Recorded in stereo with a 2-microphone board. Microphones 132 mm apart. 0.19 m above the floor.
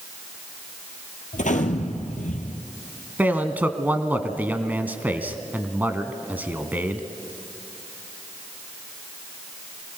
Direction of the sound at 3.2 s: 15° right (ahead or behind).